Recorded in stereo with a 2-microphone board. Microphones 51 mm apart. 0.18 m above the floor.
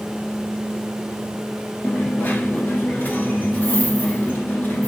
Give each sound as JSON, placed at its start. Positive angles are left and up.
{"t": 1.8, "sound": "a dropped coin", "side_deg": 35, "distance_m": 1.4}